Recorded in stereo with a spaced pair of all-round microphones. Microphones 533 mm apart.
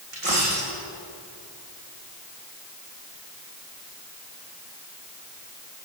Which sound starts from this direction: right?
A dropped coin, at 0.1 s.